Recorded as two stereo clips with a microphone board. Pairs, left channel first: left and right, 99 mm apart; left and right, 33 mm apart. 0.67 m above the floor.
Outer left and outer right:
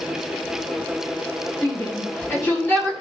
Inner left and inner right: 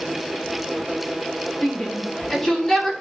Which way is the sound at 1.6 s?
25° left (ahead or behind).